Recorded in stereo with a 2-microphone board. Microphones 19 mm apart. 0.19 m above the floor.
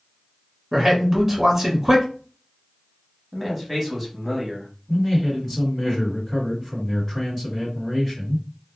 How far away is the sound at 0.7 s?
About 1.4 m.